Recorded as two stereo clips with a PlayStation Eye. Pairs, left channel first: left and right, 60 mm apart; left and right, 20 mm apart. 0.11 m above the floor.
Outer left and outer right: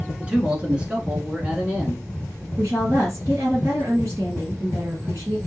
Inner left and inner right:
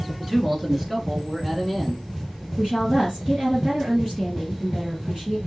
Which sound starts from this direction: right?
A woman speaking, at 2.6 s.